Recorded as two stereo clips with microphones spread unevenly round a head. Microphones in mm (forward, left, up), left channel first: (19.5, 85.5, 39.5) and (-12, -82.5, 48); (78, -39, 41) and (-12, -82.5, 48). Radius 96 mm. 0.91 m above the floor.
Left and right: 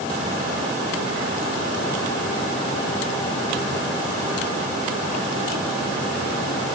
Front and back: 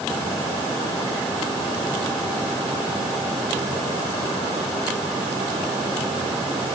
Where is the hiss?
I don't hear a hiss.